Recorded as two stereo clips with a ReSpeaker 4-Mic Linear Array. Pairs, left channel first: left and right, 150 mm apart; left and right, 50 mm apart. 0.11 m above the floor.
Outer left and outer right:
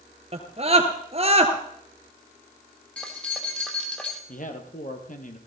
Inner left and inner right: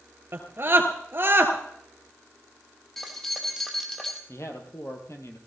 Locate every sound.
0.3 s a scream: 40° right (ahead or behind), 2.5 m
3.0 s keys jangling: 10° left (ahead or behind), 2.5 m
4.3 s a man speaking: 60° left (ahead or behind), 3 m